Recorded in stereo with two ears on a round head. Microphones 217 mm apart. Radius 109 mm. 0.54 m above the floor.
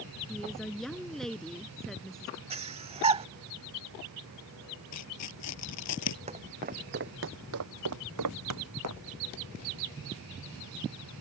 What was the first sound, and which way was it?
A woman speaking, centre (ahead or behind).